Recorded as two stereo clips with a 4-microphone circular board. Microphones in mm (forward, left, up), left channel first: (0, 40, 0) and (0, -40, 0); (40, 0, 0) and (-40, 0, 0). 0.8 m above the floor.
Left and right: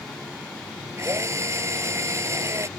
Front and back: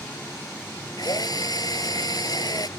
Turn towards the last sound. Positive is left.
turn(degrees=-35)